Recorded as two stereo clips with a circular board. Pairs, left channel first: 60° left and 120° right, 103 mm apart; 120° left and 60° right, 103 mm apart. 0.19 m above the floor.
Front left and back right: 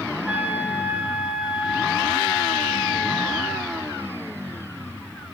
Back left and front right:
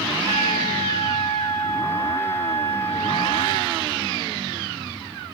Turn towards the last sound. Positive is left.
turn(degrees=-40)